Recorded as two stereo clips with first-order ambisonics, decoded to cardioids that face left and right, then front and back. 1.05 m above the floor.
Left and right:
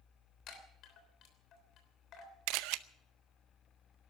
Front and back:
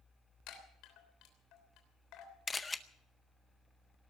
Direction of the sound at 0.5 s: 40° left.